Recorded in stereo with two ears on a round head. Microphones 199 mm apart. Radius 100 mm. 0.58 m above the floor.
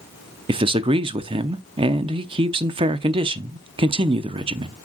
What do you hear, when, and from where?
0.5 s a man speaking: 25° right (ahead or behind), 0.6 m